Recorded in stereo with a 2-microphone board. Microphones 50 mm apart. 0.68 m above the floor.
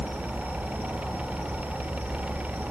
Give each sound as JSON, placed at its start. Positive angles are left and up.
{"t": 0.0, "sound": "an insect", "side_deg": -40, "distance_m": 5.5}